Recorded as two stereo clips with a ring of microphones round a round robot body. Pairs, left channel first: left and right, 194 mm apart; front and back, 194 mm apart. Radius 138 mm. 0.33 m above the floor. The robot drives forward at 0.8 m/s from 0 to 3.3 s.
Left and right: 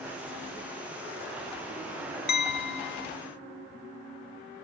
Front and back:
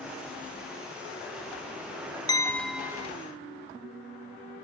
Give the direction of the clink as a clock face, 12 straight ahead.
10 o'clock.